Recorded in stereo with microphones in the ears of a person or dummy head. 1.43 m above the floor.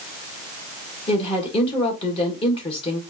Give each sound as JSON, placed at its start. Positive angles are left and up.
{"t": 1.1, "sound": "a woman speaking", "side_deg": 30, "distance_m": 1.5}